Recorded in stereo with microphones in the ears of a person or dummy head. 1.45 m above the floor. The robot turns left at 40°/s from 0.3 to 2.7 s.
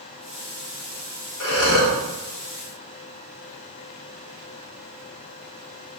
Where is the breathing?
65° left (ahead or behind), 1.2 m; by 2.0 s 75° left (ahead or behind), 1.2 m.